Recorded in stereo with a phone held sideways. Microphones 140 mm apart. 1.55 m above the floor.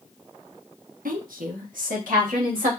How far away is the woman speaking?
About 0.8 m.